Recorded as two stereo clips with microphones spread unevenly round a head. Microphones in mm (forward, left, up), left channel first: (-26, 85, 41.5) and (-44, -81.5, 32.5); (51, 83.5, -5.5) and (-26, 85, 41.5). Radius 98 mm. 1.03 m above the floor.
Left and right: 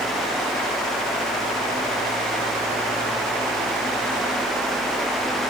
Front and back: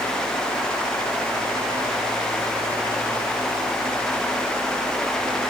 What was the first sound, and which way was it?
Only background noise.